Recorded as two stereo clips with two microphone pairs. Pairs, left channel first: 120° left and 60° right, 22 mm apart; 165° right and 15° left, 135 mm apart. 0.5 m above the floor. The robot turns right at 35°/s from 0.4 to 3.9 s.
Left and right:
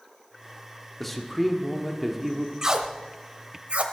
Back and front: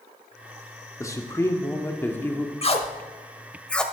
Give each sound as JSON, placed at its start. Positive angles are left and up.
{"t": 1.0, "sound": "a man speaking", "azimuth_deg": -160, "distance_m": 1.2}
{"t": 2.6, "sound": "tape being pulled", "azimuth_deg": -125, "distance_m": 1.0}